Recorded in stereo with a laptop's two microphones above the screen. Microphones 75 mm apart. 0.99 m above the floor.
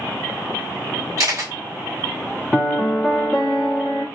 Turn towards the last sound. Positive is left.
turn(degrees=0)  # may be behind; listen again after turning